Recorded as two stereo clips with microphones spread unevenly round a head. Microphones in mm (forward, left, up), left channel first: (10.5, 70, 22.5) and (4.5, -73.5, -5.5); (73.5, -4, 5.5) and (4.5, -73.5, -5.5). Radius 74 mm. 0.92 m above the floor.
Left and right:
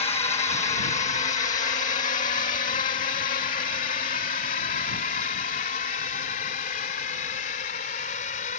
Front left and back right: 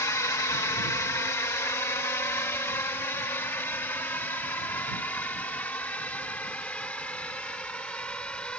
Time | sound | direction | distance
0.0 | a drone | 80° left | ?